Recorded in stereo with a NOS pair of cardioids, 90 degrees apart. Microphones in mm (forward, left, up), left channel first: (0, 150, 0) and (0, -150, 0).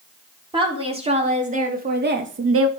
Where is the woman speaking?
15° right, 4.5 m; by 2.7 s 50° right, 1.8 m.